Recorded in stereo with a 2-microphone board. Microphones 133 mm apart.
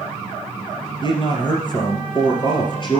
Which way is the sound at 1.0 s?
35° left (ahead or behind).